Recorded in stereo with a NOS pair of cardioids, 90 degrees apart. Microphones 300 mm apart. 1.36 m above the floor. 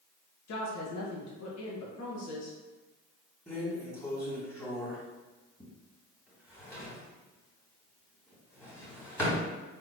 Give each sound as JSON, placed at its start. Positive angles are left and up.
{"t": 0.5, "sound": "a woman speaking", "azimuth_deg": 55, "distance_m": 1.4}
{"t": 3.5, "sound": "a drawer", "azimuth_deg": 10, "distance_m": 2.0}